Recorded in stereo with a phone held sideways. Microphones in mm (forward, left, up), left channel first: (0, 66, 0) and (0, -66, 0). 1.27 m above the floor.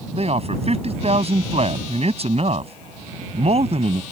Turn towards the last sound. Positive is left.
turn(degrees=-50)  # may be behind; listen again after turning